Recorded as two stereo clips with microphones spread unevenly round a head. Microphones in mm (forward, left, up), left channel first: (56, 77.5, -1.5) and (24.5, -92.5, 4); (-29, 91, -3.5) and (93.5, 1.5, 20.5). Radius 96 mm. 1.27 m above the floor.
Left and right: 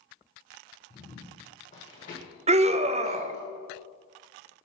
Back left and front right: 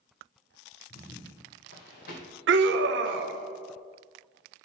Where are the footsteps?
145° left, 1.7 m; by 3.4 s 115° left, 3 m.